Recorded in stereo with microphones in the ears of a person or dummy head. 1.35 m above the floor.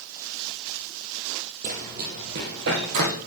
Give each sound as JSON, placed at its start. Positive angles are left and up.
{"t": 1.6, "sound": "running footsteps", "side_deg": -45, "distance_m": 2.5}